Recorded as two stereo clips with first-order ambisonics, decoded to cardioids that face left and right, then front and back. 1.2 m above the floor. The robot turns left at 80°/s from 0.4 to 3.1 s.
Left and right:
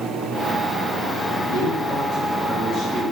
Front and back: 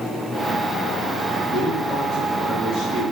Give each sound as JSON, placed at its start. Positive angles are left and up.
{"t": 1.5, "sound": "a man speaking", "azimuth_deg": 80, "distance_m": 1.8}